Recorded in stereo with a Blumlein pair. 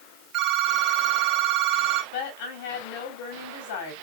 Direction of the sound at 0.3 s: 30° right.